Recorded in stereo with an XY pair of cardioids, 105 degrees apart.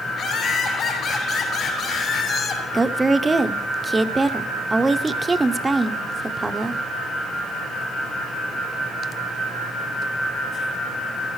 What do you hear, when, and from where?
0.1 s laughter: 60° left, 5.5 m
2.7 s a woman speaking: 20° right, 0.7 m